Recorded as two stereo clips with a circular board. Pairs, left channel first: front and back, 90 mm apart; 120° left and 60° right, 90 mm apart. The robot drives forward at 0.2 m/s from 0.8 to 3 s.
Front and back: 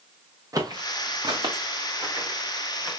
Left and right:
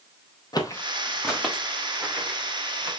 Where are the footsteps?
140° left, 0.9 m; by 2.9 s 120° right, 3.5 m.